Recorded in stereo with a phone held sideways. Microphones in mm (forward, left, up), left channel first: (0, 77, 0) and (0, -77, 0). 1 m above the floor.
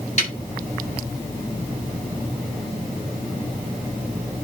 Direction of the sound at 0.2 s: 50° left (ahead or behind).